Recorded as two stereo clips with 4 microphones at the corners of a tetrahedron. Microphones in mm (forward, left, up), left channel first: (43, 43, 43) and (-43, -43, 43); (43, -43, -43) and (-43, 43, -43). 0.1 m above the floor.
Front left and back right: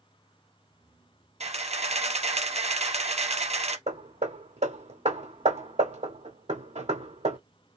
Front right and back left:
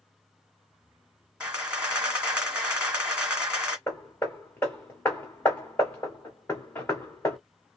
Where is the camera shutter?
145° right, 1.7 m.